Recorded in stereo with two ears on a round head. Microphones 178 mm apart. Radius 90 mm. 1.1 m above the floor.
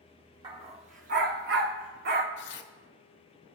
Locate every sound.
0.4 s a dog barking: 25° right (ahead or behind), 1.0 m; by 2.3 s 55° right (ahead or behind), 1.1 m
2.4 s tearing paper: 65° left (ahead or behind), 0.9 m